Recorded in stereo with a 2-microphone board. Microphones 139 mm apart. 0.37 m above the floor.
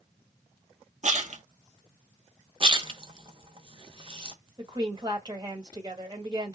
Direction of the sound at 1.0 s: 60° right (ahead or behind).